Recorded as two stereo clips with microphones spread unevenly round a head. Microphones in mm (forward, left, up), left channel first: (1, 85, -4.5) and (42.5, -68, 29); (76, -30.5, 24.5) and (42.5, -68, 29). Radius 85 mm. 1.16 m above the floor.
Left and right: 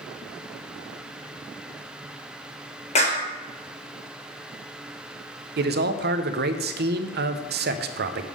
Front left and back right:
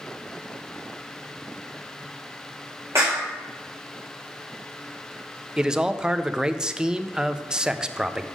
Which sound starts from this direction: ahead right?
A man speaking, at 5.6 s.